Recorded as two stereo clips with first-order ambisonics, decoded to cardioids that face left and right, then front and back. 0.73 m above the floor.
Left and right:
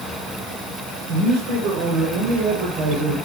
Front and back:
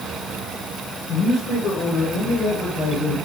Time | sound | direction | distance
1.1 | a man speaking | 50° right | 4.5 m